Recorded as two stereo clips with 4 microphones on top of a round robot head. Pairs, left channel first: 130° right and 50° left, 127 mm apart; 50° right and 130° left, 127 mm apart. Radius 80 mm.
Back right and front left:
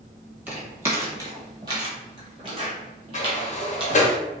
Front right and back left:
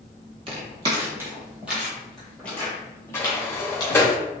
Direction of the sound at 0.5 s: 120° left.